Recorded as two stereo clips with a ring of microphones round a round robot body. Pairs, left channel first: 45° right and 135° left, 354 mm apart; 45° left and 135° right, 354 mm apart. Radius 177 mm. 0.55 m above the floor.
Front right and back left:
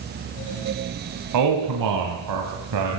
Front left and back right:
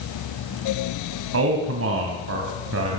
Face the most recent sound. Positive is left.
turn(degrees=170)